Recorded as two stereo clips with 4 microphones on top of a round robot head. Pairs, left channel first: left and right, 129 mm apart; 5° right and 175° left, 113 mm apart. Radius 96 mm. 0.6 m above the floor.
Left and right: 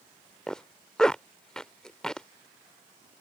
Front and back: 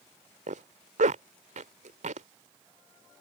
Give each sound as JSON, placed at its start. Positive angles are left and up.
{"t": 0.5, "sound": "a zipper", "azimuth_deg": 175}